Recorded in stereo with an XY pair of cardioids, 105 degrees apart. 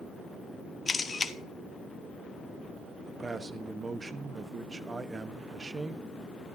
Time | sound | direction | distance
0.9 | a camera shutter | 30° left | 1.2 m
3.1 | a man speaking | 30° right | 1.1 m